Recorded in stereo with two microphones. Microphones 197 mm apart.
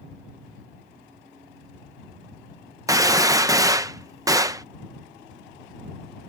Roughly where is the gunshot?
Centre.